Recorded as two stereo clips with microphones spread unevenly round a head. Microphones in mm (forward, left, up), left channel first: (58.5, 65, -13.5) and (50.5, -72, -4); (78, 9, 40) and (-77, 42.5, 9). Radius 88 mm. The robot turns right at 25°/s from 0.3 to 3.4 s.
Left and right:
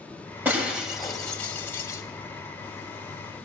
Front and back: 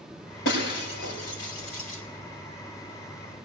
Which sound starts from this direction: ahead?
Breaking glass, at 0.5 s.